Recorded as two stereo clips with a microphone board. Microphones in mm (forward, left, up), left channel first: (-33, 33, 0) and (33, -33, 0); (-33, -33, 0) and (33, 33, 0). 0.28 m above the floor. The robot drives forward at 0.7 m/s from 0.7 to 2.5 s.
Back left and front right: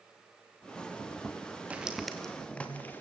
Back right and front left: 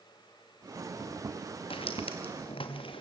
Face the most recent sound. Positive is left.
turn(degrees=-155)